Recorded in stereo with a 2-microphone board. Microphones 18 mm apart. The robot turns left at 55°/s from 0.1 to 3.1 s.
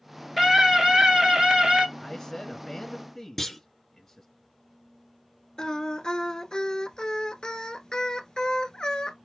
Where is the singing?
40° left (ahead or behind), 1.2 m.